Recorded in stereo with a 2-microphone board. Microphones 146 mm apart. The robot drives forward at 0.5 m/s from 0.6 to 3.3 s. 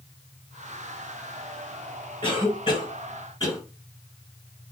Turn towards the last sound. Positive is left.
turn(degrees=30)  # may be behind; listen again after turning